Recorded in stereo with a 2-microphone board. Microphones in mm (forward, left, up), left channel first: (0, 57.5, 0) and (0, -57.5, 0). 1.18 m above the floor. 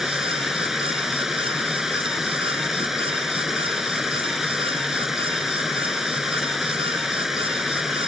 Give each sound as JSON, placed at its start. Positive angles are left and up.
{"t": 0.0, "sound": "running water", "side_deg": -5}